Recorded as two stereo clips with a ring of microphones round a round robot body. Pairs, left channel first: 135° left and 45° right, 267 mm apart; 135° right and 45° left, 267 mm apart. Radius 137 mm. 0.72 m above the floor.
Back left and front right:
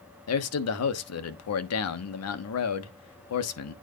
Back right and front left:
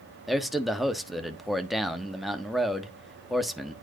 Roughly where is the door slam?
No door slam in this recording.